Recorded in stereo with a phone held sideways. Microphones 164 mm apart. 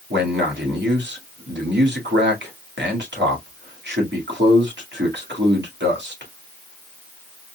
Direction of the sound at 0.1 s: 85° right.